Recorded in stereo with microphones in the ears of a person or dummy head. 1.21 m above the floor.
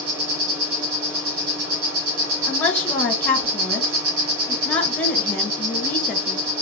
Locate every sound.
0.0 s an insect: 80° right, 2 m
2.5 s a woman speaking: 10° left (ahead or behind), 1.3 m